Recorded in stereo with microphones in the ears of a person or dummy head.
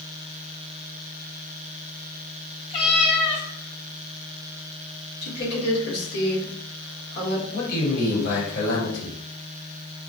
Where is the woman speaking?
75° left (ahead or behind), 1.8 m.